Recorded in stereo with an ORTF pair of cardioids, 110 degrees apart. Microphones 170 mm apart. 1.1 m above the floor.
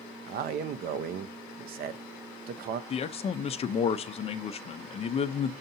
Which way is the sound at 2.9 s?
35° left.